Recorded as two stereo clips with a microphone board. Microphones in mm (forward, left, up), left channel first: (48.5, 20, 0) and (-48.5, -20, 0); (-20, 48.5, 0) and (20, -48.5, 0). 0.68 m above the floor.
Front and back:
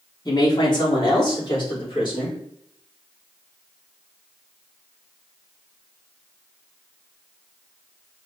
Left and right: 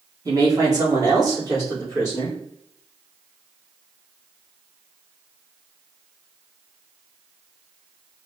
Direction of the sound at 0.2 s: 15° right.